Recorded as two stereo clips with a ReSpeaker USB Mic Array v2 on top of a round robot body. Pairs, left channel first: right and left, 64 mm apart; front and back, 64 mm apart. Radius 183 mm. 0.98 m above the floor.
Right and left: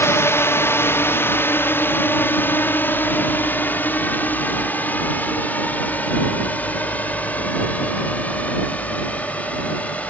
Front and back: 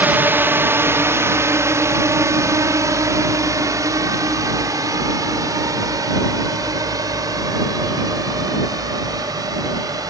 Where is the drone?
125° right; by 10.1 s 160° right.